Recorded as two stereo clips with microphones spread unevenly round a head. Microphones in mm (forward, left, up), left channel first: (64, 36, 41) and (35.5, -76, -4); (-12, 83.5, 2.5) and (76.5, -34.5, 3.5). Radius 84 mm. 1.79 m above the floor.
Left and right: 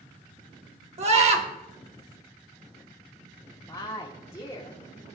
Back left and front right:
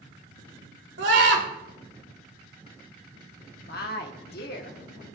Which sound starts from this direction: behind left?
A woman speaking, at 3.7 s.